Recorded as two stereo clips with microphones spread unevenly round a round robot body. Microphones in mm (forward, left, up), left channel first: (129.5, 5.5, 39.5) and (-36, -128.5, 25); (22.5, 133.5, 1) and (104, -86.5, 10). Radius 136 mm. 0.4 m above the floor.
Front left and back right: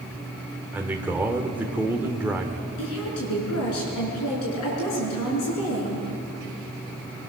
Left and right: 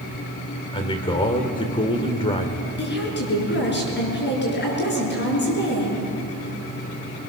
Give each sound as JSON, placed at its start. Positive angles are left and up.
{"t": 0.7, "sound": "a man speaking", "azimuth_deg": 150, "distance_m": 1.5}
{"t": 2.8, "sound": "a woman speaking", "azimuth_deg": 70, "distance_m": 6.5}